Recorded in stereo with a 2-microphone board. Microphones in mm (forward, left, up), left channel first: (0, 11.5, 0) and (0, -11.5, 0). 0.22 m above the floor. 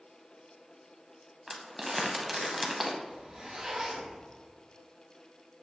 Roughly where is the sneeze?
I don't hear a sneeze.